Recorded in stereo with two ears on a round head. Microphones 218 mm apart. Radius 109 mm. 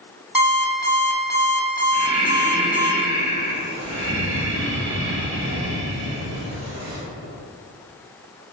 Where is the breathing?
80° right, 1.9 m.